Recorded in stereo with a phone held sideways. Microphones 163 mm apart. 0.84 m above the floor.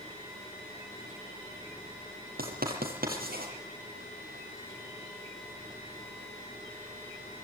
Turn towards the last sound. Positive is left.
turn(degrees=-70)  # may be behind; listen again after turning